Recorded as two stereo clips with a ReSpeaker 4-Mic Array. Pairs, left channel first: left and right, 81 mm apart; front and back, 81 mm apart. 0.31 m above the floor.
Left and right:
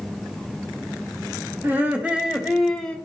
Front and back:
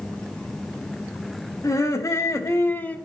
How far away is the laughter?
About 1.9 m.